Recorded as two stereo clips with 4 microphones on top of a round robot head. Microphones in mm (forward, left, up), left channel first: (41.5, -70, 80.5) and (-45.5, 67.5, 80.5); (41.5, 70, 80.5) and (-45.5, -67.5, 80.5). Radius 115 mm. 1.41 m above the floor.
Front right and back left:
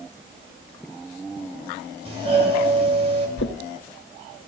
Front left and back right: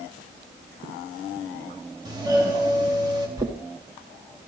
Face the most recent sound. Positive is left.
turn(degrees=-55)